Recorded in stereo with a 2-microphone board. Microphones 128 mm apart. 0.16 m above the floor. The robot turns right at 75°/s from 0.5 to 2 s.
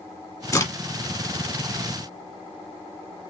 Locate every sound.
0.5 s a crack: 25° left (ahead or behind), 1.5 m